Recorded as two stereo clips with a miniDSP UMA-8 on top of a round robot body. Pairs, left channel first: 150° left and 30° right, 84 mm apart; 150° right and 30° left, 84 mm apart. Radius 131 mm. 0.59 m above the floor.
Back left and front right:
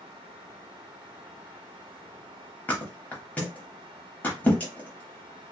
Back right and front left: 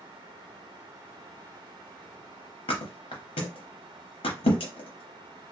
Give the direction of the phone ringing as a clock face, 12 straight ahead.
I don't hear a phone ringing.